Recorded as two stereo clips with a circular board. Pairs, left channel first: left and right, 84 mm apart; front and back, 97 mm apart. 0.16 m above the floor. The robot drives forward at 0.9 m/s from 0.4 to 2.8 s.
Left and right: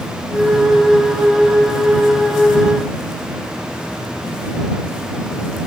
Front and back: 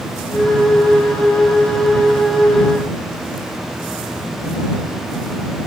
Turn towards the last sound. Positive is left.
No sound to turn to.